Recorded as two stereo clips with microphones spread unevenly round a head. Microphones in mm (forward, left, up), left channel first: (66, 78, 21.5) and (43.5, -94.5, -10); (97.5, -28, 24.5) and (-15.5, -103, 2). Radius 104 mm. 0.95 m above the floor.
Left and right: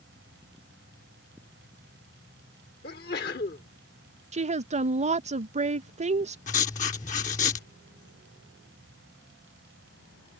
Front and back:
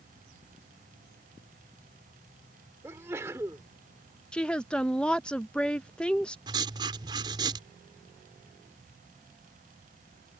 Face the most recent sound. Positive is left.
turn(degrees=145)